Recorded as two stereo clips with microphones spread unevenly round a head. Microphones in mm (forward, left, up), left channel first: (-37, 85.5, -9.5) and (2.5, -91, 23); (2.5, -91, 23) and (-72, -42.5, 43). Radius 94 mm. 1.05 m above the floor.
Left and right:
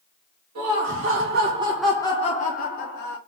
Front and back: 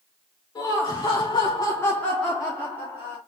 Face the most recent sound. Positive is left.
turn(degrees=70)